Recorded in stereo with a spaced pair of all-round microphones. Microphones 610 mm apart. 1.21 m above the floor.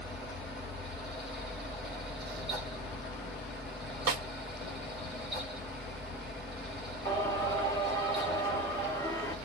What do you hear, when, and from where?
0.0 s a fan: centre (ahead or behind), 1.9 m
4.1 s a snare drum: 70° right (ahead or behind), 1.2 m
7.0 s singing: 5° left (ahead or behind), 1.3 m